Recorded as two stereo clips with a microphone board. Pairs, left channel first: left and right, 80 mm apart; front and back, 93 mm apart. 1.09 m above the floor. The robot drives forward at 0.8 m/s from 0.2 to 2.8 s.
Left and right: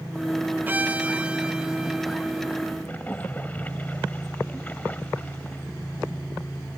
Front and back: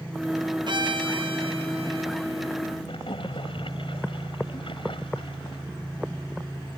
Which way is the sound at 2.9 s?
20° left.